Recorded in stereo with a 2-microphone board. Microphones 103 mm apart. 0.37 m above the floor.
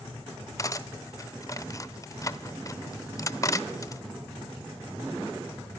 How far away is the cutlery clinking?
About 0.6 m.